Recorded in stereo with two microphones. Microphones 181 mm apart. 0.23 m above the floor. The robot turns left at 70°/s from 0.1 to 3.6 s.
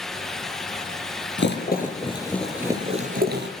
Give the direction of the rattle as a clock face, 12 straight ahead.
9 o'clock.